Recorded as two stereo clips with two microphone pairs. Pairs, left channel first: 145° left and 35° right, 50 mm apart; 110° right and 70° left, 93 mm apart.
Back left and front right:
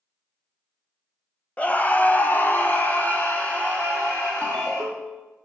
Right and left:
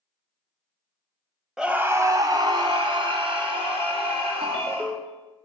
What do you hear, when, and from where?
1.6 s a scream: 150° left, 1.0 m; by 4.9 s 80° left, 4 m
4.4 s a ringtone: 75° left, 1.4 m